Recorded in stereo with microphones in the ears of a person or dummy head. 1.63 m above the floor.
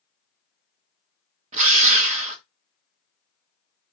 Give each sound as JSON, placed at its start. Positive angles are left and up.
{"t": 1.5, "sound": "a drill", "side_deg": -40, "distance_m": 1.4}